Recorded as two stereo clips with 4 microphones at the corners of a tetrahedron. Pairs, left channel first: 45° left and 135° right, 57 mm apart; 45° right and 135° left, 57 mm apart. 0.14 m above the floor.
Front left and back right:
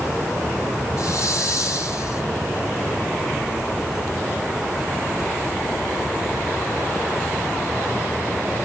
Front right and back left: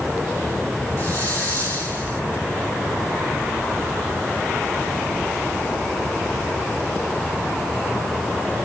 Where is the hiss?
10° left, 5.5 m.